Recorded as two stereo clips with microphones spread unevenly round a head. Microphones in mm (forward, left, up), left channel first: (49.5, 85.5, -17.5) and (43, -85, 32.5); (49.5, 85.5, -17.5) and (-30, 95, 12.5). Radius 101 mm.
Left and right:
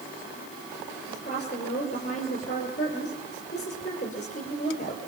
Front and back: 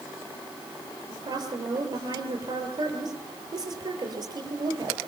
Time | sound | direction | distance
1.1 | a woman speaking | 145° left | 6.5 m